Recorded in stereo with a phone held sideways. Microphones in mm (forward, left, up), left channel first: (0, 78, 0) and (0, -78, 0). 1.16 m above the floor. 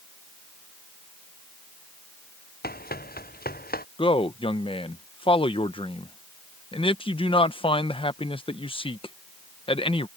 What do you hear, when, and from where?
2.6 s running footsteps: 80° left; by 3.9 s 75° left (ahead or behind)
4.0 s a man speaking: 35° left (ahead or behind)